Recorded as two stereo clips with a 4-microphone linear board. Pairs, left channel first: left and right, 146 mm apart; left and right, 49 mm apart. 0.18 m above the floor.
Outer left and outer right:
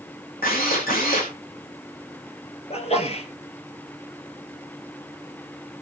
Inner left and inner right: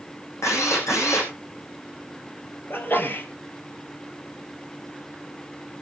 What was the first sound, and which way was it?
A drill, 80° left.